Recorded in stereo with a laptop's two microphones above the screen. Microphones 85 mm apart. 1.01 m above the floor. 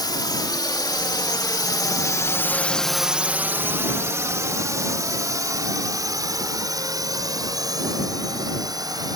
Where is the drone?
55° left (ahead or behind); by 9.2 s 50° right (ahead or behind).